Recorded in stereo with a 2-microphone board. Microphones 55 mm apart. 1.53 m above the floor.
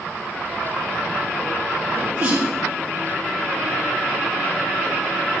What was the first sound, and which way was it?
A sneeze, 45° right (ahead or behind).